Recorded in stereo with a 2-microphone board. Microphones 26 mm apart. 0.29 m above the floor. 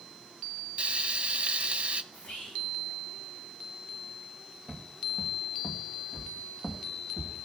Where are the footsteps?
10° left (ahead or behind), 1.7 m.